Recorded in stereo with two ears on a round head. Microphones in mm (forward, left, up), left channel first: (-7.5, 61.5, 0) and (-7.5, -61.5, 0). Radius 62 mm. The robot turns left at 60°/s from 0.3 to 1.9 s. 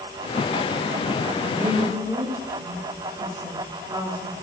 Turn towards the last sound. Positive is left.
turn(degrees=-20)  # may be behind; listen again after turning